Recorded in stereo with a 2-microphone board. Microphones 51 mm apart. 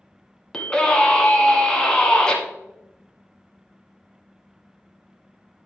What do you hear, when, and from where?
0.5 s a scream: 15° left (ahead or behind), 1.9 m